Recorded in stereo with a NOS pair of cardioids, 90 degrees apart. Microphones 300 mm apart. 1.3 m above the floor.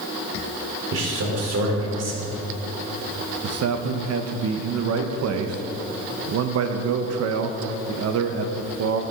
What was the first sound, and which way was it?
A man speaking, 55° right.